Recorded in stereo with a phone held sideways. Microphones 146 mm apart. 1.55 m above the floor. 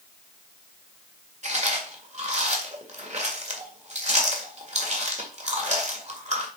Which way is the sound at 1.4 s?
50° right (ahead or behind).